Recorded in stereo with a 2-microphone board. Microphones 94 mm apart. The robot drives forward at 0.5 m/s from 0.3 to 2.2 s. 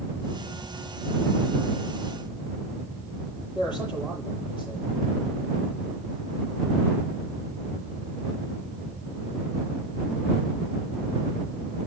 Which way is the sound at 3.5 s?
55° left (ahead or behind).